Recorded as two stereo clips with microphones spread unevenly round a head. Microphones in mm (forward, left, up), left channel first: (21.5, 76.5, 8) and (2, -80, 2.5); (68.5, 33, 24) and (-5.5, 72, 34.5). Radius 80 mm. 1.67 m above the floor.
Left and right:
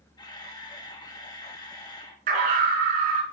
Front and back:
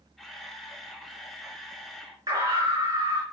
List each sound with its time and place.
0.2 s a camera shutter: 70° left, 1.2 m
2.3 s a scream: 140° right, 4 m